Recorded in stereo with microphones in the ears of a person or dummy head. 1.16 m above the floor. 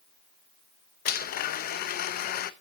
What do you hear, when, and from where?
1.1 s a blender: 50° left (ahead or behind), 0.8 m